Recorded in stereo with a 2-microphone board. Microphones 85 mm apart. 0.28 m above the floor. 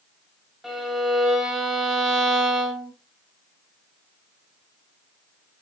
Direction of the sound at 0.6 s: 5° right (ahead or behind).